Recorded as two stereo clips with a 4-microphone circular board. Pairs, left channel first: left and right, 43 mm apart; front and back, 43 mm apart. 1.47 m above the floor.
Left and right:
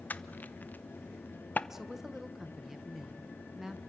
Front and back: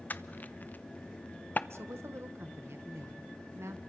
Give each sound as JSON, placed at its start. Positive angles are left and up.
{"t": 0.1, "sound": "crushing", "azimuth_deg": 45, "distance_m": 0.8}
{"t": 1.7, "sound": "a woman speaking", "azimuth_deg": -175, "distance_m": 1.4}